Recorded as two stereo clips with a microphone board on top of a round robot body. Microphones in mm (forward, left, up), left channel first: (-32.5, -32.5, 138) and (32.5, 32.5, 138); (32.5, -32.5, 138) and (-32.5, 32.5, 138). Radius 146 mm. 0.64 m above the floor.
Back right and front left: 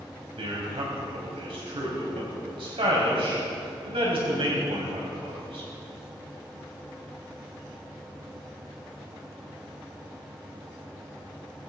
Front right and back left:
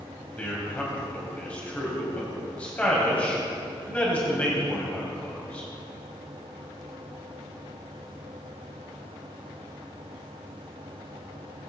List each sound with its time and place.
0.4 s a man speaking: 30° left, 4.5 m